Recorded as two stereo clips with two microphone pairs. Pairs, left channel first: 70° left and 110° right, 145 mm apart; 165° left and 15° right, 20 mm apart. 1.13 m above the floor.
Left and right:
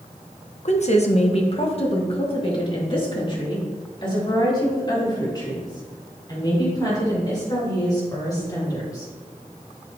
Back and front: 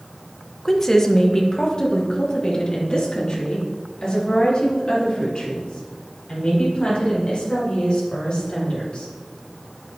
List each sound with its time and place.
0.7 s a woman speaking: 95° left, 1.0 m; by 9.1 s 135° left, 7 m